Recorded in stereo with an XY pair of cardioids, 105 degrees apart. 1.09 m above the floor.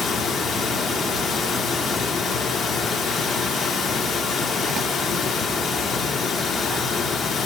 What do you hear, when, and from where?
0.0 s running water: 55° left, 0.7 m